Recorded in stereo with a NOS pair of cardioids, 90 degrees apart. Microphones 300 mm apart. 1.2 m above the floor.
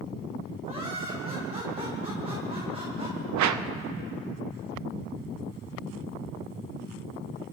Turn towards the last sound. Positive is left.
turn(degrees=-70)